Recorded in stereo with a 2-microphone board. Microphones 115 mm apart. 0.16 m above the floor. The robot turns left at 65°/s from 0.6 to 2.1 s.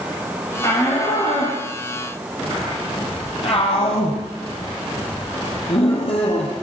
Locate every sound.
0.6 s a shout: 25° left (ahead or behind), 5 m; by 6.5 s 60° left (ahead or behind), 5 m